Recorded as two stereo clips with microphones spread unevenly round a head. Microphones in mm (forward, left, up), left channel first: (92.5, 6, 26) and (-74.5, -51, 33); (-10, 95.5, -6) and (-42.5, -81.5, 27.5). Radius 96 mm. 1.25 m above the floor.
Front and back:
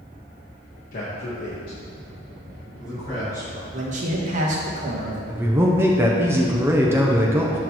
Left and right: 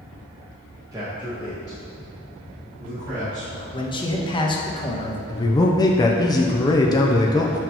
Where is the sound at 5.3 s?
125° left, 0.5 m.